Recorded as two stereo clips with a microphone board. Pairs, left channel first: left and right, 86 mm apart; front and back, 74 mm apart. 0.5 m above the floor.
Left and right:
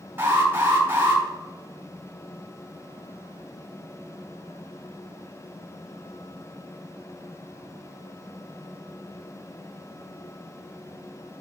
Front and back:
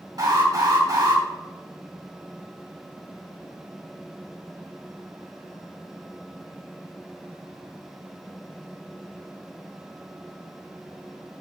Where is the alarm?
150° right, 4 m.